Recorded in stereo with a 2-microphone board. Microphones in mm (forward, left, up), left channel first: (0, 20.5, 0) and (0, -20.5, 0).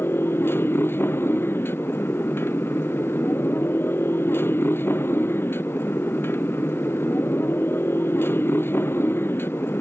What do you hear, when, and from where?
0.0 s a motorcycle: 70° left (ahead or behind)